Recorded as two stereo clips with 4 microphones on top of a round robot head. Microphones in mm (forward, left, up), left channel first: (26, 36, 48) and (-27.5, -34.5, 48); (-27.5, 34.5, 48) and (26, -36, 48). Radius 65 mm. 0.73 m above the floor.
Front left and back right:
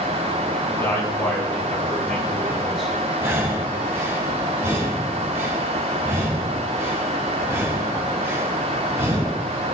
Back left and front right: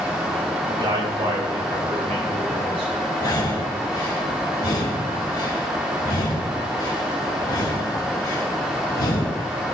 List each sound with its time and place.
0.7 s a man speaking: 10° right, 6 m; by 3.0 s 40° right, 7 m
3.2 s breathing: 170° left, 3 m